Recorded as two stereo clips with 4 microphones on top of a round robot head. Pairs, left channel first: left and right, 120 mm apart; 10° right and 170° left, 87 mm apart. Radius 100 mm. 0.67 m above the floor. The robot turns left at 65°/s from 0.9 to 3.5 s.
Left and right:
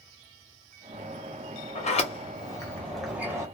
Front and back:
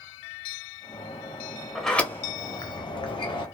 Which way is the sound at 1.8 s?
80° left.